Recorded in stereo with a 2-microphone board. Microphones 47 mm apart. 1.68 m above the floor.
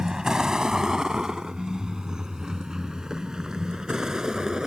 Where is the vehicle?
15° right (ahead or behind).